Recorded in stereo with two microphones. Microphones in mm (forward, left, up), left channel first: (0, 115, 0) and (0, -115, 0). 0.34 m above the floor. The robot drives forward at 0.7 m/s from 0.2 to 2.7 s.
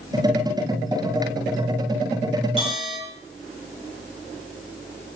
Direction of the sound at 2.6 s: 25° left (ahead or behind).